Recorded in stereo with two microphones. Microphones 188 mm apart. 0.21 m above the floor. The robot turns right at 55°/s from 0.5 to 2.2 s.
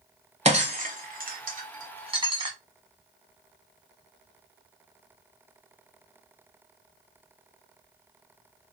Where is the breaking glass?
35° right (ahead or behind), 1.0 m; by 2.5 s 25° right (ahead or behind), 1.0 m.